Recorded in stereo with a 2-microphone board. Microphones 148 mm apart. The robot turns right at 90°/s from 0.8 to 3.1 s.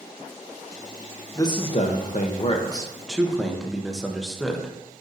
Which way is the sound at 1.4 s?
25° left.